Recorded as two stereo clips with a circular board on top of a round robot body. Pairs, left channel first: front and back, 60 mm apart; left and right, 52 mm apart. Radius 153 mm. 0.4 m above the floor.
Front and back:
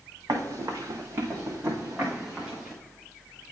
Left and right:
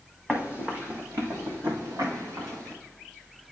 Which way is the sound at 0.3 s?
160° right.